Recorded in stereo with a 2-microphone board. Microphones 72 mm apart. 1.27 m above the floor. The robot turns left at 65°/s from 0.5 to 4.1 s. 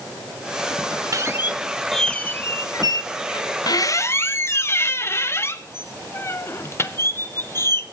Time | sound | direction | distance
1.1 | a squeak | 130° right | 0.6 m